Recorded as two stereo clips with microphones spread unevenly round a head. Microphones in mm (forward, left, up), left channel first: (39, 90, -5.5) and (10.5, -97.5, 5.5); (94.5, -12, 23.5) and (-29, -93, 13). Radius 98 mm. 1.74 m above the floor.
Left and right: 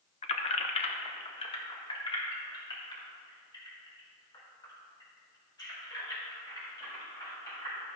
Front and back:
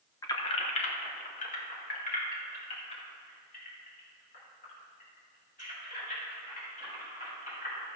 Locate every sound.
0.2 s keys jangling: 70° left, 0.8 m; by 8.0 s 10° left, 7.5 m